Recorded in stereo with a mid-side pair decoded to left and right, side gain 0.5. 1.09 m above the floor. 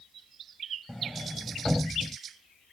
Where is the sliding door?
Straight ahead.